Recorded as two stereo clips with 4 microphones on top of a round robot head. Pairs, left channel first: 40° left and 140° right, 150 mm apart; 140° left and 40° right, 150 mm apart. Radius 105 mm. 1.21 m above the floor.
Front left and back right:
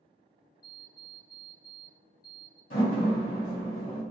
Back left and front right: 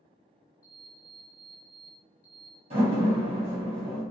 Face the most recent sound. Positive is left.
turn(degrees=10)